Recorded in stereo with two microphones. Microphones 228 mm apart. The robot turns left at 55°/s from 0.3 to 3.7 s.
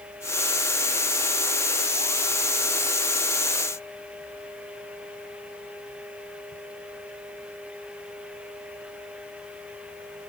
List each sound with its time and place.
Only background noise.